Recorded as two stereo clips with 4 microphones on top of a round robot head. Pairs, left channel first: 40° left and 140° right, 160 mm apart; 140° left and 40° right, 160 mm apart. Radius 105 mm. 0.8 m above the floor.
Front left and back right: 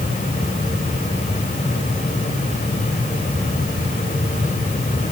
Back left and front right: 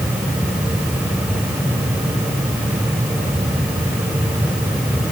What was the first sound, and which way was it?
Only background noise.